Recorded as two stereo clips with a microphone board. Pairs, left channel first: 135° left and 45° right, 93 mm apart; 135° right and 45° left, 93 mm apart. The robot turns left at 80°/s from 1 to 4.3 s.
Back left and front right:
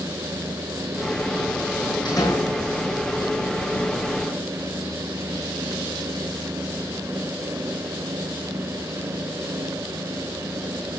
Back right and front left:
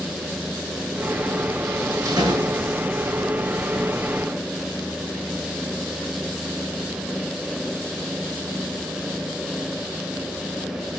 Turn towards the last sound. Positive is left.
turn(degrees=-85)